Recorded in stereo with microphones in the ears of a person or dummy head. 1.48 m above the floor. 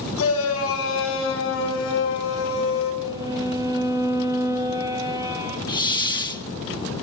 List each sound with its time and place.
0.2 s a shout: 80° left, 5.5 m; by 2.9 s 70° left (ahead or behind), 7.5 m
3.0 s a violin: 20° right (ahead or behind), 2 m
5.7 s a hiss: 20° left (ahead or behind), 0.8 m